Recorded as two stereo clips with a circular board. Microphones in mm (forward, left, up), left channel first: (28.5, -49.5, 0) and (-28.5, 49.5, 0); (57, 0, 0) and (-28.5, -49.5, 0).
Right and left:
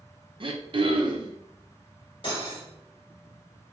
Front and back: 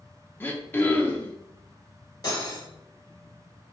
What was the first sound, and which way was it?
Throat clearing, 95° left.